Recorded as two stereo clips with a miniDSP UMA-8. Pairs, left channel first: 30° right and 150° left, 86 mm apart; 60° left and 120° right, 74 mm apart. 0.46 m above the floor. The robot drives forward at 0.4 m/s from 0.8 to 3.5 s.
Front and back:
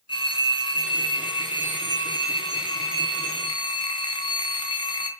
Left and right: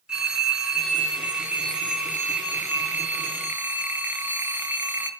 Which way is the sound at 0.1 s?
40° right.